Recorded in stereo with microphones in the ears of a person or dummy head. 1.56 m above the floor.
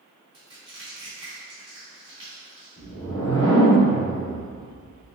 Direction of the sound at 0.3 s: 30° right (ahead or behind).